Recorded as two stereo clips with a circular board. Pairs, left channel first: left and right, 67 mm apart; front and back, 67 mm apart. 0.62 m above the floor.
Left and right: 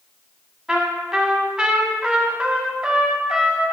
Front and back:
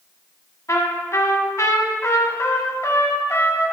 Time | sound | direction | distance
0.7 | a trumpet | 10° right | 1.2 m